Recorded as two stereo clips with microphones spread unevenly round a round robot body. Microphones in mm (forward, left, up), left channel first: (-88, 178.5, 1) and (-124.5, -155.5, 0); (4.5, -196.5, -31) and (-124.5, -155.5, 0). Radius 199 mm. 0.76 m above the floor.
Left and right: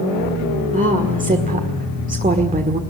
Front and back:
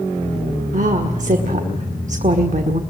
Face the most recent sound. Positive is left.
turn(degrees=-165)